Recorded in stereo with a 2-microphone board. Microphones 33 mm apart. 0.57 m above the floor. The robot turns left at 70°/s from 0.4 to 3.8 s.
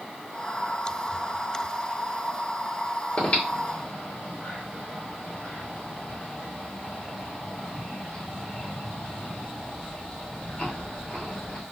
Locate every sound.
3.2 s breathing: 45° left (ahead or behind), 1.7 m; by 11.6 s 40° left (ahead or behind), 1.7 m